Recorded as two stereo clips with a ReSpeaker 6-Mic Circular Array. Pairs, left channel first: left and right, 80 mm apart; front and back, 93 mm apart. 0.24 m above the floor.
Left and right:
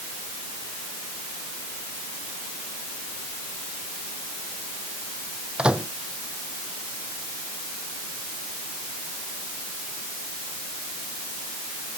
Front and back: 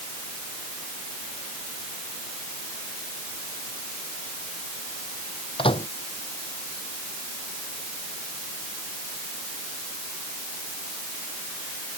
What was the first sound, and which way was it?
A microwave, 10° right.